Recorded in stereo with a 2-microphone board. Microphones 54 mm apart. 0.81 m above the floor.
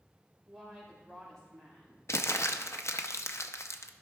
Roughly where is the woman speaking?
Centre.